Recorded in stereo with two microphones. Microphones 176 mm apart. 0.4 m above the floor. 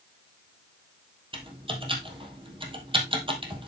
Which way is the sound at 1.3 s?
30° right (ahead or behind).